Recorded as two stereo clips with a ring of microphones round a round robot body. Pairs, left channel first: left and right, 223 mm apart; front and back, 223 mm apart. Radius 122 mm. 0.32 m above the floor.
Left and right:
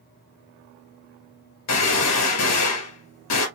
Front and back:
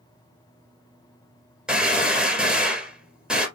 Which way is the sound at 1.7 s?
95° left.